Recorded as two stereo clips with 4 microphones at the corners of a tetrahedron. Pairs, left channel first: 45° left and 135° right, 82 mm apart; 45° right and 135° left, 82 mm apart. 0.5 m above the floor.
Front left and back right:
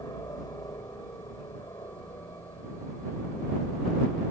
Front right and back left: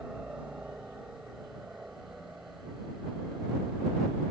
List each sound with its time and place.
0.0 s a helicopter: 65° left